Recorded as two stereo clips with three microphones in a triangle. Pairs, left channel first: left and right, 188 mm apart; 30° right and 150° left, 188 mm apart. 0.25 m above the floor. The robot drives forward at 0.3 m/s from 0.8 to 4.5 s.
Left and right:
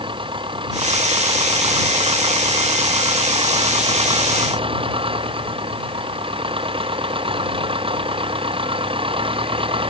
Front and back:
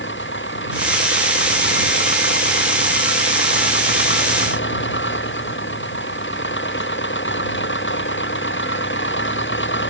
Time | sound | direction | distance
0.0 | an engine running | 25° right | ?